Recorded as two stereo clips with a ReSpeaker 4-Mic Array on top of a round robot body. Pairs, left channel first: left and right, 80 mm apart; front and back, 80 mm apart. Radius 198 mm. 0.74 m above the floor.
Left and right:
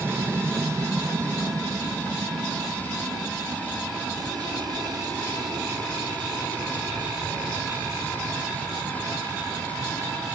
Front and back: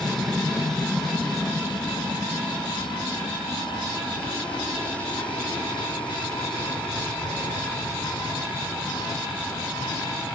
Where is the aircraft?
85° right; by 10.4 s 70° right.